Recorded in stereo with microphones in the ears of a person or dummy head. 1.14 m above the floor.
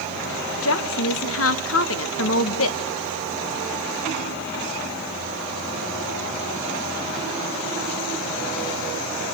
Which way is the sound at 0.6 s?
70° left (ahead or behind).